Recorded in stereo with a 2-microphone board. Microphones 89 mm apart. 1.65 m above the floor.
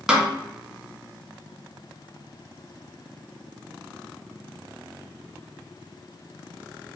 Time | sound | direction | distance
0.1 | a snare drum | 5° right (ahead or behind) | 0.6 m